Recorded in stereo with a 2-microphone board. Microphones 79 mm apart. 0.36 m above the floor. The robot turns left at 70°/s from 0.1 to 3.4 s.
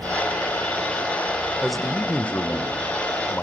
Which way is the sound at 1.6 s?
5° right (ahead or behind).